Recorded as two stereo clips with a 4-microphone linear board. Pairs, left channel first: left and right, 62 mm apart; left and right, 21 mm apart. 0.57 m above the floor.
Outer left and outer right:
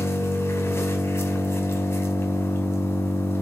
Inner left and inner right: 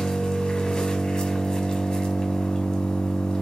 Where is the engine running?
45° left (ahead or behind), 2.0 m.